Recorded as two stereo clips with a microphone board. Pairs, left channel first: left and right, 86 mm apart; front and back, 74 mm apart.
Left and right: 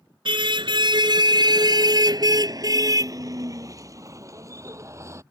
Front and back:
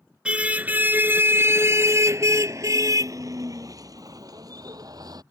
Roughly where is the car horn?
Right.